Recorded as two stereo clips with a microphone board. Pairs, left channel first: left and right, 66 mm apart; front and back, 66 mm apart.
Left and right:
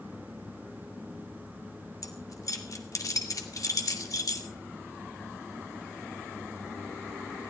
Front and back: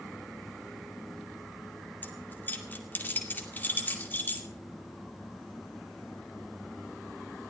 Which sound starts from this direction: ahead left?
Keys jangling, at 2.0 s.